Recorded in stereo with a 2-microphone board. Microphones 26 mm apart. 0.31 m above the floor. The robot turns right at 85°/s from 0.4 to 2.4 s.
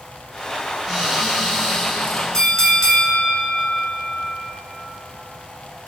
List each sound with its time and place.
0.9 s a cupboard door: 70° right, 1.8 m; by 2.2 s 45° left, 1.8 m
2.3 s a bell: 20° left (ahead or behind), 0.5 m; by 4.4 s 25° left (ahead or behind), 0.5 m